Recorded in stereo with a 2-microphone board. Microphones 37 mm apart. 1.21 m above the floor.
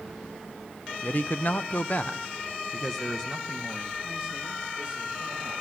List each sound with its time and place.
1.0 s a man speaking: 45° left (ahead or behind), 0.8 m; by 5.5 s 10° right (ahead or behind), 2.5 m